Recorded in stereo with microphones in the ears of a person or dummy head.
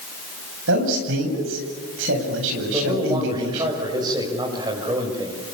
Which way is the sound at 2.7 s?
25° right (ahead or behind).